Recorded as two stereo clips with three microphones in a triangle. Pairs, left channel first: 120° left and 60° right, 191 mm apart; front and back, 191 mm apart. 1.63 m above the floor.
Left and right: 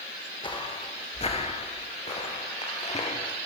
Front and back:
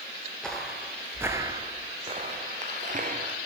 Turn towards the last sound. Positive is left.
turn(degrees=165)